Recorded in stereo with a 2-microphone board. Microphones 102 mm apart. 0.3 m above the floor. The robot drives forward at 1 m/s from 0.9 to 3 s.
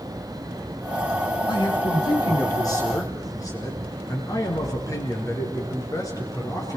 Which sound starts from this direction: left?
A man speaking, at 1.5 s.